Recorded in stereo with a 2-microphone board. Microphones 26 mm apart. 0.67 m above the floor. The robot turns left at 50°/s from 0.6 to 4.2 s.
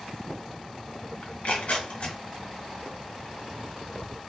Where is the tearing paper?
65° left (ahead or behind), 0.9 m; by 2.2 s 50° left (ahead or behind), 0.9 m.